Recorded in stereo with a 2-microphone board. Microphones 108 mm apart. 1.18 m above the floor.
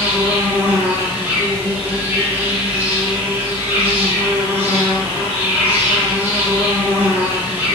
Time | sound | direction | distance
0.0 | an insect | 20° right (ahead or behind) | 1.3 m